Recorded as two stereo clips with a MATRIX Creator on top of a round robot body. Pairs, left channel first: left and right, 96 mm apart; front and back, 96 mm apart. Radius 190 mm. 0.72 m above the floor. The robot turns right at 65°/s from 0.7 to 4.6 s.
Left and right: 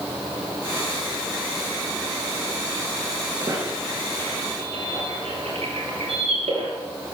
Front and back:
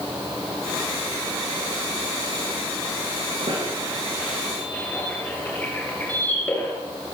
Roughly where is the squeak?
Behind right.